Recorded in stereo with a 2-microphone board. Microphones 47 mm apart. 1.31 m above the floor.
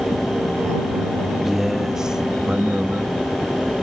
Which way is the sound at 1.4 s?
5° right (ahead or behind).